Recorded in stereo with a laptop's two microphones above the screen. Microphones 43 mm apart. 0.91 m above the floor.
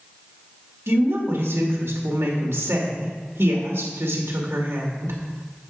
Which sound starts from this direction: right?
A woman speaking, at 0.9 s.